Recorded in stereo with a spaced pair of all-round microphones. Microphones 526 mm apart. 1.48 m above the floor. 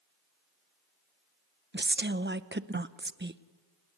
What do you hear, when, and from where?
1.7 s a woman speaking: 20° right (ahead or behind), 0.8 m